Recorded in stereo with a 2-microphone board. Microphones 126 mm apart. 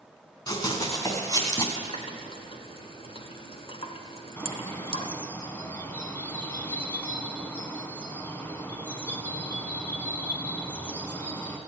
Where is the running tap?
50° left (ahead or behind), 1.2 m.